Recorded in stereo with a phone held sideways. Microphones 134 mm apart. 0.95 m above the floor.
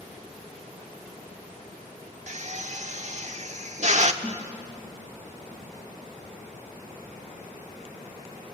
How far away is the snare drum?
About 2.5 m.